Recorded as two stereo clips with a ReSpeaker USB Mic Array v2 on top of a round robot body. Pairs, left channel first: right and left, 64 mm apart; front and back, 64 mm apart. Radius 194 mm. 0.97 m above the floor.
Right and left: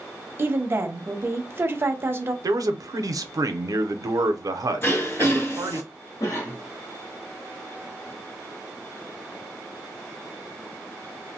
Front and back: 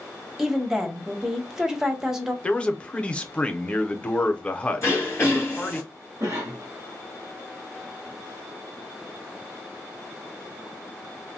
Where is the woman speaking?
105° left, 0.9 m.